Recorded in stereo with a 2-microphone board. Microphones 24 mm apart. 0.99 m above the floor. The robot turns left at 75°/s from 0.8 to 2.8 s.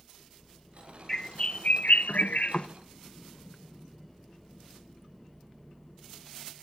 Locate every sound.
1.1 s a bird: 165° left, 0.5 m; by 2.7 s 45° left, 0.5 m